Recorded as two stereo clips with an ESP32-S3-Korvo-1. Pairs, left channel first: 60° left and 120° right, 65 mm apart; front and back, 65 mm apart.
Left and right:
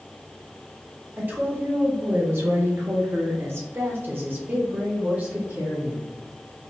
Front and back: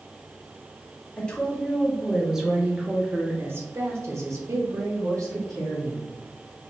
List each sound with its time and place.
1.2 s a woman speaking: 70° right, 1.4 m; by 6.1 s 170° left, 2 m